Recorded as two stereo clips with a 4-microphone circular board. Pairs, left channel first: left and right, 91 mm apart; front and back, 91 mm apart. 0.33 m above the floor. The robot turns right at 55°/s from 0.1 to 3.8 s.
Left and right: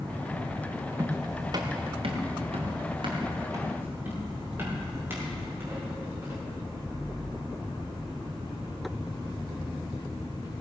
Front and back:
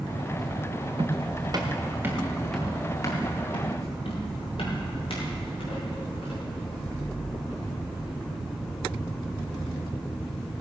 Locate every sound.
1.0 s footsteps: 155° right, 2 m; by 6.5 s 25° right, 10 m